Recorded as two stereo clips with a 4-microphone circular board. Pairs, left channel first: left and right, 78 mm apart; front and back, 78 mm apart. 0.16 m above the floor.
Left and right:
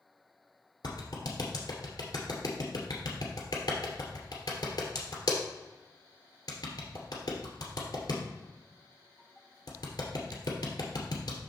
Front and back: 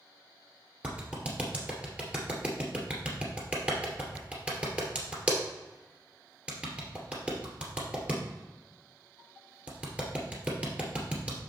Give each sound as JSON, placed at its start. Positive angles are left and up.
{"t": 0.8, "sound": "a clap", "azimuth_deg": 110, "distance_m": 2.0}